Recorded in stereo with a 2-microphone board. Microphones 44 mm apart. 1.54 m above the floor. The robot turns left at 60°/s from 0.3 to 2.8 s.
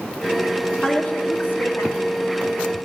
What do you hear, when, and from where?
0.8 s a woman speaking: 160° left, 1.2 m; by 2.2 s 80° left, 1.2 m